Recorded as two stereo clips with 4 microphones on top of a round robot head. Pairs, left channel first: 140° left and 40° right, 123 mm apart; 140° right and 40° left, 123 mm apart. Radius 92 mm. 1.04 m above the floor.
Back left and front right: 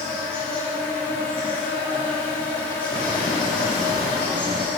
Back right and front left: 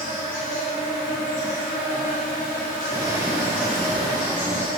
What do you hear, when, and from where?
0.0 s an insect: 140° right, 1.9 m
2.9 s footsteps: 95° left, 1.3 m; by 4.7 s 90° right, 1.2 m